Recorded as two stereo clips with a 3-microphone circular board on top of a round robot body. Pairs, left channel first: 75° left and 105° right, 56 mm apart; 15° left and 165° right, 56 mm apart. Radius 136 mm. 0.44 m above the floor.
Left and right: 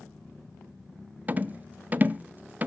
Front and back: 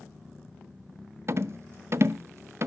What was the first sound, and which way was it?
A rattle, 155° right.